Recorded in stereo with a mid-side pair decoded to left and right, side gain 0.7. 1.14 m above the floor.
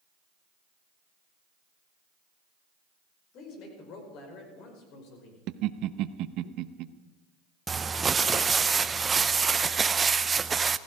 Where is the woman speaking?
55° left, 5 m; by 5.4 s 65° left, 5.5 m.